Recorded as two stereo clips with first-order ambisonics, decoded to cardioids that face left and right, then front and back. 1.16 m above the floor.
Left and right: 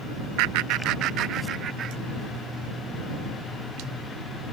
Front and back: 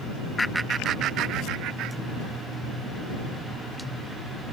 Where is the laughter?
75° right; by 2.4 s 150° right.